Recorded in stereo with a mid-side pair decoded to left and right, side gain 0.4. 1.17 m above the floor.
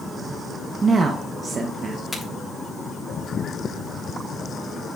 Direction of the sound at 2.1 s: 15° left.